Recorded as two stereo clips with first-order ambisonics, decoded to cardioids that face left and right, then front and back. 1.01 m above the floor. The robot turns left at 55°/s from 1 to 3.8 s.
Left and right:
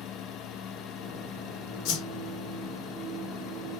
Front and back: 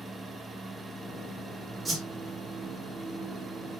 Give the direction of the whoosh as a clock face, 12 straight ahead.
9 o'clock.